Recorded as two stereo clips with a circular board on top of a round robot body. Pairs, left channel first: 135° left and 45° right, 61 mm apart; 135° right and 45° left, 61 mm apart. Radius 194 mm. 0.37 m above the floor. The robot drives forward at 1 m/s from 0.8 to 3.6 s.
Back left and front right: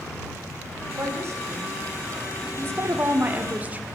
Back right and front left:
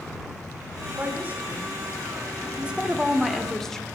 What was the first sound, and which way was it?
A woman speaking, 10° right.